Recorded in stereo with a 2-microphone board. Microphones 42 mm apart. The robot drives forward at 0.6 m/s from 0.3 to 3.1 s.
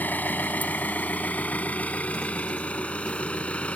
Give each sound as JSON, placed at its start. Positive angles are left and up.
{"t": 0.0, "sound": "an engine running", "side_deg": 45}